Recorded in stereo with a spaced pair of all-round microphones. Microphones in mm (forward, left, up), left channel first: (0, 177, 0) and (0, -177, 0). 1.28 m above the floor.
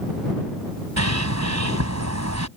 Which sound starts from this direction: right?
A bird, at 1.0 s.